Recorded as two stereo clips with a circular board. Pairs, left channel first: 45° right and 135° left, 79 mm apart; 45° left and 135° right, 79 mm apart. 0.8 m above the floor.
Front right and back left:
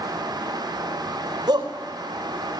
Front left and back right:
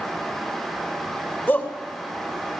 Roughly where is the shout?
Left.